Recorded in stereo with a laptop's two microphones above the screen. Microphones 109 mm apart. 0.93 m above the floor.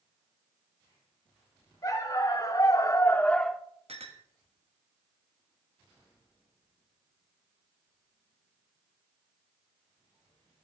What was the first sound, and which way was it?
A dog barking, 35° left (ahead or behind).